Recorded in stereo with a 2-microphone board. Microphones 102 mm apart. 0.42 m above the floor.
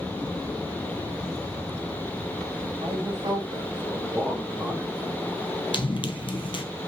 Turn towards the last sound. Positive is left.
turn(degrees=55)  # may be behind; listen again after turning